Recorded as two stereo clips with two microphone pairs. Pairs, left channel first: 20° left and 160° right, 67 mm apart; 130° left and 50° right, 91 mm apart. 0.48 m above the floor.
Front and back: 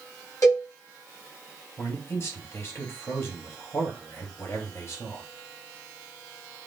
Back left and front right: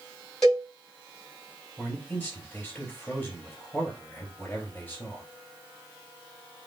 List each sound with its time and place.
0.4 s a cowbell: 50° left, 2.5 m
1.8 s a man speaking: 60° left, 3 m